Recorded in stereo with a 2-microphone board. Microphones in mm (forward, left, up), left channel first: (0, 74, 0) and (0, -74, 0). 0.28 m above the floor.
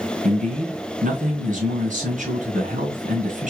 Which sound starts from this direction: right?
A man speaking, at 0.2 s.